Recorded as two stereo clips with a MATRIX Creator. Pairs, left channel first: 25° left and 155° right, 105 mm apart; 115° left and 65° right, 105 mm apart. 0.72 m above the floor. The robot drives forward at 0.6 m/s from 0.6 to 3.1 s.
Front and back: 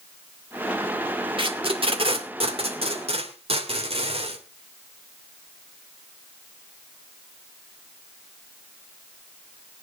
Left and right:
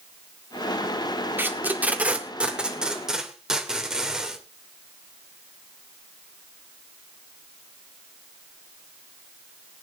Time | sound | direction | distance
1.4 | tape being pulled | 135° right | 2 m